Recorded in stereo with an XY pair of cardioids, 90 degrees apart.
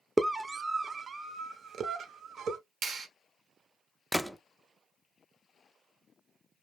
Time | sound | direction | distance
0.2 | a scream | 15° right | 0.8 m
2.8 | a clap | 65° right | 1.2 m
4.1 | a gunshot | straight ahead | 0.5 m